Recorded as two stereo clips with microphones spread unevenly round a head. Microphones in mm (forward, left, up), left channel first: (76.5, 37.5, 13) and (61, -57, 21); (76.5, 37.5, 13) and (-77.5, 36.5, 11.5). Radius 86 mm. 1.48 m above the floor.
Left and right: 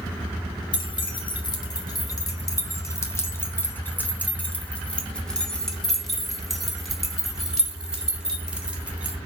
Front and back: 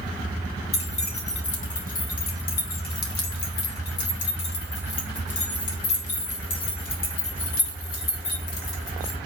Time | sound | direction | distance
0.7 | keys jangling | 45° left | 2.5 m